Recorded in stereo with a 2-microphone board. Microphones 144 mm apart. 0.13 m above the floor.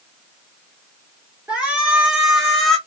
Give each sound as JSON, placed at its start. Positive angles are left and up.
{"t": 1.5, "sound": "a shout", "side_deg": -10, "distance_m": 2.5}